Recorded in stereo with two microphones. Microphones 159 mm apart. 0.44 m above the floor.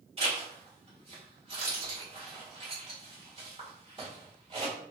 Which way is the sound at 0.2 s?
35° right (ahead or behind).